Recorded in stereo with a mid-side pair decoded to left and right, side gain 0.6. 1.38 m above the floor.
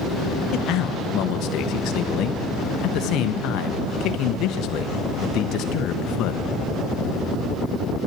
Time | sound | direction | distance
0.5 | a man speaking | 60° left | 1.1 m